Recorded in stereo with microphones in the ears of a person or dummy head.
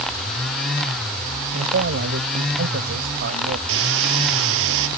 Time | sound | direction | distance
1.5 | a man speaking | 50° right (ahead or behind) | ?
3.7 | a hiss | 70° right (ahead or behind) | ?